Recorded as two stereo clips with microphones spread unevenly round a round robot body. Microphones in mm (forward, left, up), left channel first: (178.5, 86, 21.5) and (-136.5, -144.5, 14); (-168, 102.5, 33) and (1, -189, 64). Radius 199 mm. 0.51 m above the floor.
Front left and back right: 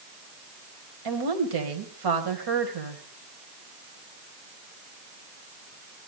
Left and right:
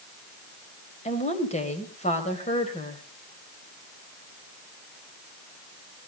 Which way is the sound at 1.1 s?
170° right.